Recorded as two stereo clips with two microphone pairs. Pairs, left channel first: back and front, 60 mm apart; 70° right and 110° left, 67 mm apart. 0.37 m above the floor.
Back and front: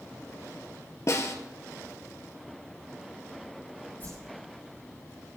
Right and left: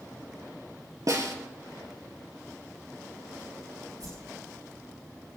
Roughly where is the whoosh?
Behind left.